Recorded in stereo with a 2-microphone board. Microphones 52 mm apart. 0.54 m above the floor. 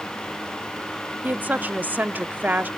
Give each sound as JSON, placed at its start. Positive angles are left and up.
{"t": 1.2, "sound": "a woman speaking", "side_deg": -35, "distance_m": 0.7}